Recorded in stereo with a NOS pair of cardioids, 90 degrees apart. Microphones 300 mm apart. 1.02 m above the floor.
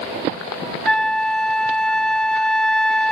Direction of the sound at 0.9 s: 5° left.